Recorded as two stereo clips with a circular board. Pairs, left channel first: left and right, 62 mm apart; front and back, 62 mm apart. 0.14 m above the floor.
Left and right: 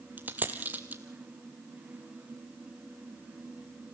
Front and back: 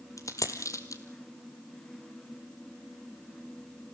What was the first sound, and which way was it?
A dropped coin, 30° right.